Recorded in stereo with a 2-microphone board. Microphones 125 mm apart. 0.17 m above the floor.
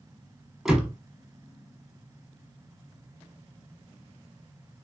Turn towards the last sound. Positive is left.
turn(degrees=-5)  # may be behind; listen again after turning